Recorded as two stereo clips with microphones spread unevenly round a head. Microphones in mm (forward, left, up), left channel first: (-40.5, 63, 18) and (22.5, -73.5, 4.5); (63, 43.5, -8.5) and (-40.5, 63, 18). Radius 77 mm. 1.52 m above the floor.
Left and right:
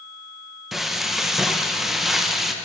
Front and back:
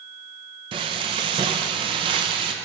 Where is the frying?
155° right, 0.9 m.